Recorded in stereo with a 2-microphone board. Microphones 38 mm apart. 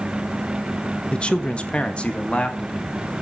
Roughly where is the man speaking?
Left.